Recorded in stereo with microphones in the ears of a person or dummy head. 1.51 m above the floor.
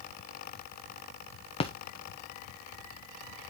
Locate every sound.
1.6 s a splash: 30° left (ahead or behind), 0.9 m